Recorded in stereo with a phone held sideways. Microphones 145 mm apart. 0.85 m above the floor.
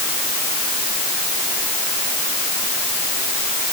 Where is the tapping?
I don't hear tapping.